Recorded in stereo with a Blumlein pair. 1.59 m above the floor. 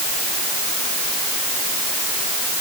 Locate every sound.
Only background noise.